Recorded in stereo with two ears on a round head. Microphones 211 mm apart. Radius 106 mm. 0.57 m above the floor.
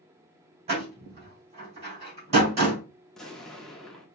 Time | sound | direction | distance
0.7 | a door slam | 30° right (ahead or behind) | 3 m
3.1 | an explosion | centre (ahead or behind) | 0.8 m